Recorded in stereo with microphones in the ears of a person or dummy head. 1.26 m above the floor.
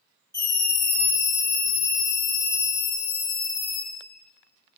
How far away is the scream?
About 2 m.